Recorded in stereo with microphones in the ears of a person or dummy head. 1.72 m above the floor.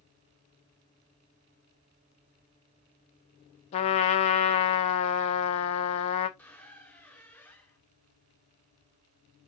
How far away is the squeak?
About 0.9 m.